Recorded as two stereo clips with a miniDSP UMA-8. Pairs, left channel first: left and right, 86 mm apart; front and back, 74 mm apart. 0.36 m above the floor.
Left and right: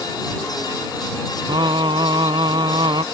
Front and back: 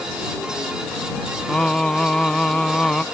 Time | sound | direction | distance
1.5 | singing | 80° right | ?